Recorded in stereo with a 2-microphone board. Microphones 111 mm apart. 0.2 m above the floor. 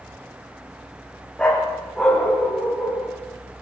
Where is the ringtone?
I don't hear a ringtone.